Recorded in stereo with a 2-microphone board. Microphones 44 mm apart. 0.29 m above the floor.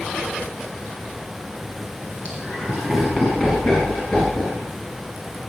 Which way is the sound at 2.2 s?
25° right (ahead or behind).